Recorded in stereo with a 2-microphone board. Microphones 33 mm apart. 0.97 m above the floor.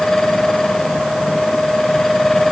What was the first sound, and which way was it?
Only background noise.